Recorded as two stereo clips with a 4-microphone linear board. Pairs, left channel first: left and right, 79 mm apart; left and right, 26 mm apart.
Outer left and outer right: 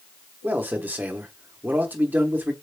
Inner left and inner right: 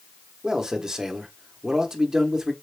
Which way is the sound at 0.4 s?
25° right (ahead or behind).